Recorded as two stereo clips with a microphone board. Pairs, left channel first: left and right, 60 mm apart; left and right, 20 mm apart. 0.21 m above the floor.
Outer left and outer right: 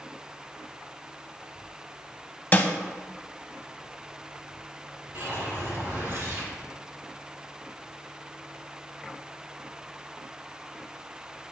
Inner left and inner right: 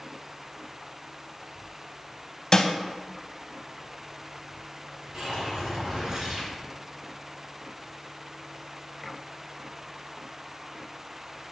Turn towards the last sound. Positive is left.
turn(degrees=-45)  # may be behind; listen again after turning